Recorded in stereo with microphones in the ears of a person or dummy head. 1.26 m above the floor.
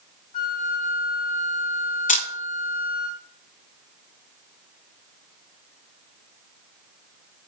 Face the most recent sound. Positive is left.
turn(degrees=35)  # may be behind; listen again after turning